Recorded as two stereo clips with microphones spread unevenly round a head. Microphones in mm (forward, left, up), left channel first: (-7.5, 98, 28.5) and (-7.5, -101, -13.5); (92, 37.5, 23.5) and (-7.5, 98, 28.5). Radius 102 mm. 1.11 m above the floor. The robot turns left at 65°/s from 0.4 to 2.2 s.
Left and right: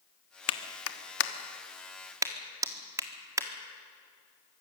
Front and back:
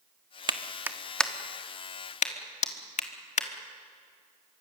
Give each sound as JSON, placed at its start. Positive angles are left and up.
{"t": 0.5, "sound": "a clap", "azimuth_deg": 100, "distance_m": 1.4}